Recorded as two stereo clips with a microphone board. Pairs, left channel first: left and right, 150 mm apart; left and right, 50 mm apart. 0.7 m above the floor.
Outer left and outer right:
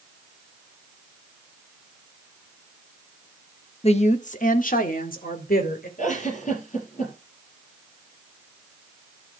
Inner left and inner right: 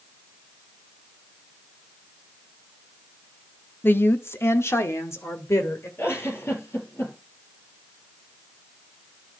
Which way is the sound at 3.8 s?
45° left (ahead or behind).